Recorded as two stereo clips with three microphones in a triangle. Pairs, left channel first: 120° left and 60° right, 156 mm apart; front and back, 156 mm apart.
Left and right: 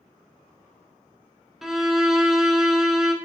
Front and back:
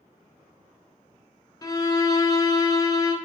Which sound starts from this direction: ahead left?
A violin, at 1.6 s.